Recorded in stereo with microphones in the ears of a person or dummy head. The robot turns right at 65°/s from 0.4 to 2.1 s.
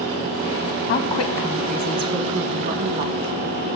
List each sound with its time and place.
0.9 s a woman speaking: 130° left, 1.4 m; by 3.3 s 150° right, 1.4 m